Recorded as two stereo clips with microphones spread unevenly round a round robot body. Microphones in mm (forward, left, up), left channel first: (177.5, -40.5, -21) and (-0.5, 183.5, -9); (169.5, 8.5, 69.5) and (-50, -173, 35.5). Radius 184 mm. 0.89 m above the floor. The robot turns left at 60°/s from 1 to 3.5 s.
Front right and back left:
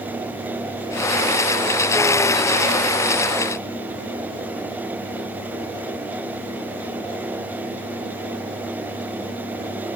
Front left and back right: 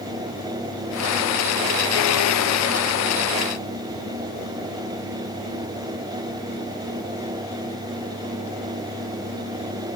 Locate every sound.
Only background noise.